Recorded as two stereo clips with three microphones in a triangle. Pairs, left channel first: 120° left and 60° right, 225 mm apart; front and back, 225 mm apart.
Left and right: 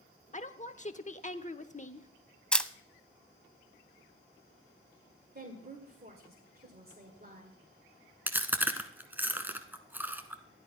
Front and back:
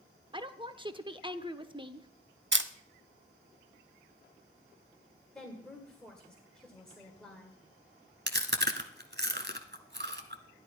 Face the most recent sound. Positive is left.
turn(degrees=-140)